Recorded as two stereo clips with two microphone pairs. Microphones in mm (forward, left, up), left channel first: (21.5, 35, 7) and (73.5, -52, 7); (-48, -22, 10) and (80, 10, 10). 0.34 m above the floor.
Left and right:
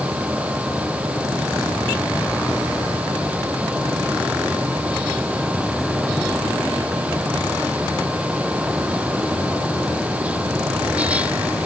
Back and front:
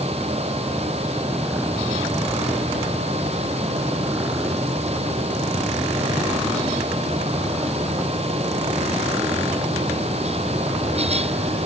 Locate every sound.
Only background noise.